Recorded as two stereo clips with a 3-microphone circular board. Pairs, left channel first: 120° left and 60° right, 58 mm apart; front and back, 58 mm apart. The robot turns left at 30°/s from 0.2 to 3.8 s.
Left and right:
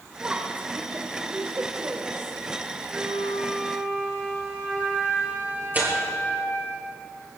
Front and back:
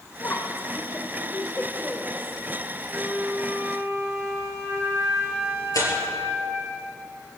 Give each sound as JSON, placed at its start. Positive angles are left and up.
{"t": 0.2, "sound": "a woman speaking", "azimuth_deg": 0, "distance_m": 1.6}
{"t": 2.9, "sound": "a flute", "azimuth_deg": -95, "distance_m": 7.0}
{"t": 5.7, "sound": "tearing paper", "azimuth_deg": 0, "distance_m": 5.5}